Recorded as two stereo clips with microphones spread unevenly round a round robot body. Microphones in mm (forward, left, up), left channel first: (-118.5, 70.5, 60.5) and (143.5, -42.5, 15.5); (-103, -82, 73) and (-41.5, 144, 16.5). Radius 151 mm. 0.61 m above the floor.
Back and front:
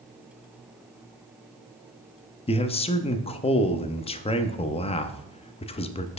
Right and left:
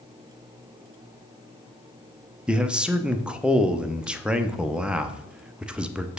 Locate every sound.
2.5 s a man speaking: 100° left, 0.5 m